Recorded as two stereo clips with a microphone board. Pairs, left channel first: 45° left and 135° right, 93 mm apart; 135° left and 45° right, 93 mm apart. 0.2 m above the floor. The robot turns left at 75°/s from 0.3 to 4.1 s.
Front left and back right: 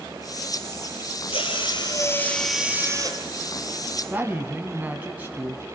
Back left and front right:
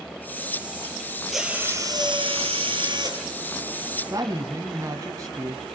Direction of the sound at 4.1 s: 70° right.